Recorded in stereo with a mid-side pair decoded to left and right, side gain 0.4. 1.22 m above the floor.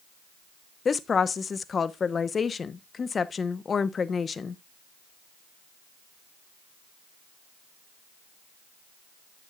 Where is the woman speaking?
45° left, 0.9 m.